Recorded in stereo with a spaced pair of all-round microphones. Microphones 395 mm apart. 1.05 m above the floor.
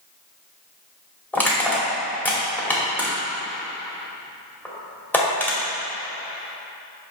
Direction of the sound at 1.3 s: 5° left (ahead or behind).